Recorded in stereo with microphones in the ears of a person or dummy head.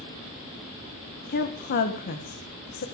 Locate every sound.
1.3 s a woman speaking: 55° left (ahead or behind), 1.5 m